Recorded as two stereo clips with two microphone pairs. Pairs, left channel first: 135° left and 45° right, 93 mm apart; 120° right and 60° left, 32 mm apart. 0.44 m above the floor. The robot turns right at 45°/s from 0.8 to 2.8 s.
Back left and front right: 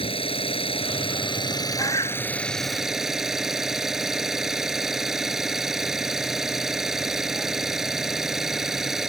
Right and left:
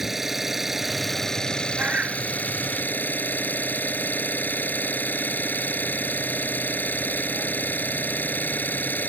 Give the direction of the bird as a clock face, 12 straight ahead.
9 o'clock.